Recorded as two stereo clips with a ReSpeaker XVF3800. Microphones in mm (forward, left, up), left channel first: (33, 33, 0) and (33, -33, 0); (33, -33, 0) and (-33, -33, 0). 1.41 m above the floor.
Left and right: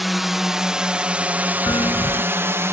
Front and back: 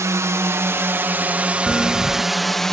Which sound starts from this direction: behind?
A drone, at 0.0 s.